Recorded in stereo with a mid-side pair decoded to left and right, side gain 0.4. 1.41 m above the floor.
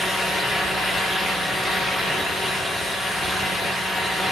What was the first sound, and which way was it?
A fan, 55° left.